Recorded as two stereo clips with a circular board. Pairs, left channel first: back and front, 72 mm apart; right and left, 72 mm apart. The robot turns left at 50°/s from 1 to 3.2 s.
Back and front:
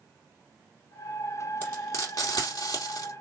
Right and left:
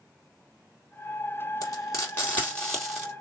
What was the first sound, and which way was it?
Frying, 120° right.